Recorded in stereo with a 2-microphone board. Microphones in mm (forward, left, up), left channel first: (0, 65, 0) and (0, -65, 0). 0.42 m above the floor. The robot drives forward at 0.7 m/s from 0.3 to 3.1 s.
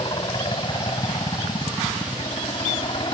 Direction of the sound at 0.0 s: 40° left (ahead or behind).